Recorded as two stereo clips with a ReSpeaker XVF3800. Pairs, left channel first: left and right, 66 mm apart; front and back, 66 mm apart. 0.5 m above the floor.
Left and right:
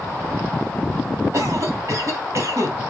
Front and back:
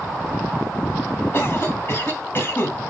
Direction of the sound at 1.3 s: 50° right.